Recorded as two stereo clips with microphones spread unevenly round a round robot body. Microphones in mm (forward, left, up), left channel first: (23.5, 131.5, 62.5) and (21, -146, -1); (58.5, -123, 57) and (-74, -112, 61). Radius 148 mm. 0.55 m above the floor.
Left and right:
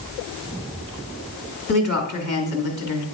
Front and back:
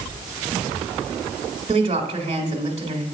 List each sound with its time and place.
1.7 s a woman speaking: 155° left, 1.4 m